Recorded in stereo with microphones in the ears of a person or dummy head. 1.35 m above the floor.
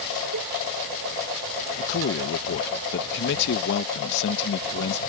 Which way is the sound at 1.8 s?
60° left (ahead or behind).